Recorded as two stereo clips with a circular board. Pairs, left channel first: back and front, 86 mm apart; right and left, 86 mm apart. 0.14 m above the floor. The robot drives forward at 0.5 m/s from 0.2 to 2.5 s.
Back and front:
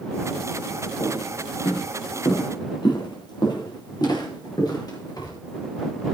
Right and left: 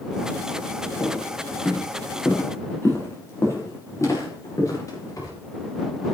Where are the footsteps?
155° right, 8 m; by 5.3 s 135° right, 9 m.